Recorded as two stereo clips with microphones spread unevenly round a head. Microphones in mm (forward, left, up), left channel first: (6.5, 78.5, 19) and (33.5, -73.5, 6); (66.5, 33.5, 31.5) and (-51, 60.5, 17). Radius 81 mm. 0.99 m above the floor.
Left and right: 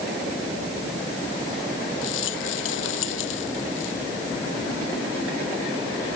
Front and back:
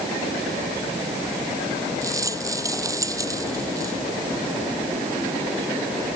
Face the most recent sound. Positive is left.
turn(degrees=105)